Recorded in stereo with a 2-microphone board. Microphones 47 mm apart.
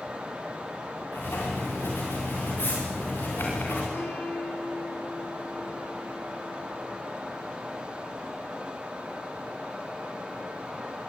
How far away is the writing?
About 9 m.